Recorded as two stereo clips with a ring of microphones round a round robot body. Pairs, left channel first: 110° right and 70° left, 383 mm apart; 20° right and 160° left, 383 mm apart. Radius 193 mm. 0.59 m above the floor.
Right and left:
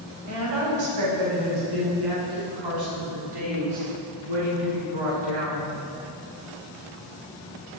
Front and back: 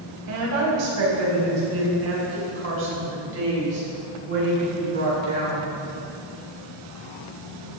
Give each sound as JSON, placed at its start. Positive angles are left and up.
{"t": 0.3, "sound": "a woman speaking", "azimuth_deg": 110, "distance_m": 4.0}